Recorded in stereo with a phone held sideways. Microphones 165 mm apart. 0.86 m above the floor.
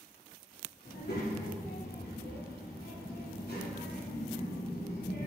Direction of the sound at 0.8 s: 80° left.